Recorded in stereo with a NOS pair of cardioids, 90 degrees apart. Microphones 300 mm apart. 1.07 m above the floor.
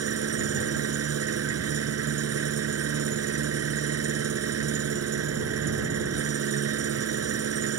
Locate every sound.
0.0 s an engine running: 55° right